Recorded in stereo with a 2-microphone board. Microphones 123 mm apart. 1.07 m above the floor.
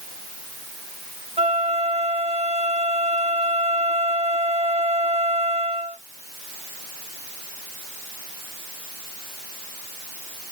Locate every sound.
1.4 s a flute: 55° right (ahead or behind), 0.8 m